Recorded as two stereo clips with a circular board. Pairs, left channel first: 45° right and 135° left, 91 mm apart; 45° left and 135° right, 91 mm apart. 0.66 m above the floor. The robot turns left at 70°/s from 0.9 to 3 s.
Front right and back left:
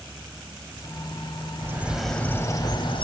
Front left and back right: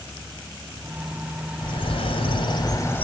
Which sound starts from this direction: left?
A bird, at 1.6 s.